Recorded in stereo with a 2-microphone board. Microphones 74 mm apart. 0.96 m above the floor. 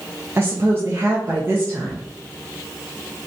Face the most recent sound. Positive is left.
turn(degrees=-35)  # may be behind; listen again after turning